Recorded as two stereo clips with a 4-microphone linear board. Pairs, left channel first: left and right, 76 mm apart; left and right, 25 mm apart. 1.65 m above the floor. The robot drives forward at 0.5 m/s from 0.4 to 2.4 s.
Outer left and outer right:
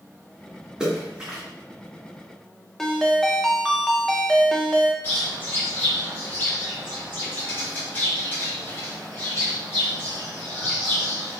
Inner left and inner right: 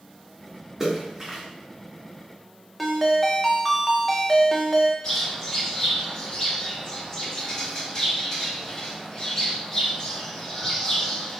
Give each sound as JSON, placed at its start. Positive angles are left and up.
{"t": 0.8, "sound": "a splash", "side_deg": -10, "distance_m": 1.5}
{"t": 2.8, "sound": "a ringtone", "side_deg": 5, "distance_m": 0.6}
{"t": 5.0, "sound": "a bird", "side_deg": 25, "distance_m": 1.9}